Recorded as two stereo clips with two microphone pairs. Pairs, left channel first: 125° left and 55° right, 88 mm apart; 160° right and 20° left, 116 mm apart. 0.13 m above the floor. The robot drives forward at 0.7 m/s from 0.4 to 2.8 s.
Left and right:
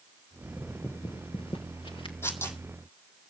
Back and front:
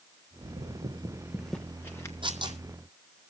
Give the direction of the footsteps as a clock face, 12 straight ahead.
11 o'clock.